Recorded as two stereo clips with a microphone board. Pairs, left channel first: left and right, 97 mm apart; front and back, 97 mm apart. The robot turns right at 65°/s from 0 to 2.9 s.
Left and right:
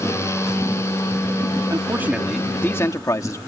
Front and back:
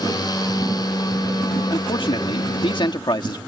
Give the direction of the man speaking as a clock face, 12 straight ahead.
1 o'clock.